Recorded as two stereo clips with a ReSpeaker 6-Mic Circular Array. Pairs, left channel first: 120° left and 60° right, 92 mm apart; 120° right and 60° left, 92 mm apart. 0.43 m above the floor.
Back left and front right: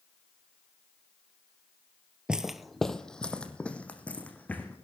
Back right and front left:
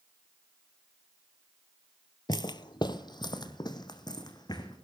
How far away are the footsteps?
About 0.5 m.